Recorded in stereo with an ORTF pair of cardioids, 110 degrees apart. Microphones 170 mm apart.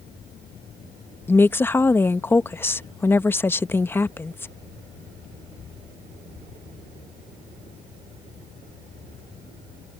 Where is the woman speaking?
15° left.